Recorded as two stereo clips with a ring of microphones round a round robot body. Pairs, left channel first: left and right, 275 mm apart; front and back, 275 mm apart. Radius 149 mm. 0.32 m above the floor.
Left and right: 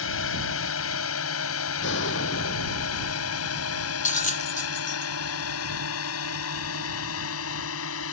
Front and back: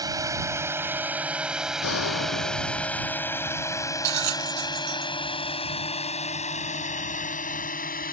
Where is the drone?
105° left; by 8.1 s 55° left.